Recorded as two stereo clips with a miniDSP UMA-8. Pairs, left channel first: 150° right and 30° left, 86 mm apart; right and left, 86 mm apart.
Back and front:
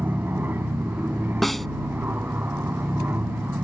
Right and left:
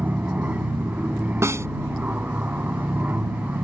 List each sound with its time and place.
0.0 s an aircraft: 50° left
1.4 s a snare drum: 125° left